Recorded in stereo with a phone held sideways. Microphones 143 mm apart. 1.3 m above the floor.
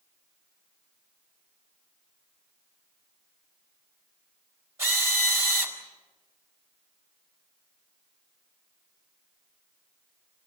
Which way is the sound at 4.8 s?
20° right (ahead or behind).